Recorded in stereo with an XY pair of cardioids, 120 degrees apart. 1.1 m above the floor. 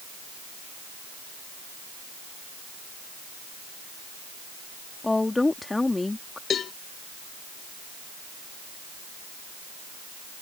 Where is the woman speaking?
15° left.